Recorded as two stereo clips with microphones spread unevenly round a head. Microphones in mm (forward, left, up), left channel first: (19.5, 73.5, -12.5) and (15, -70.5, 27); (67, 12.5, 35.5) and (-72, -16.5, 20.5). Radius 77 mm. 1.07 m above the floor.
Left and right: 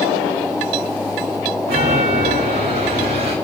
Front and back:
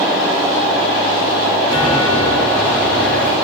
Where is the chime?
70° right, 4 m.